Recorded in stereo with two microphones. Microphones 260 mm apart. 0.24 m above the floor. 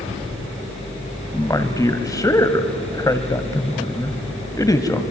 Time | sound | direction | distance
1.3 | a man speaking | 15° left (ahead or behind) | 1.2 m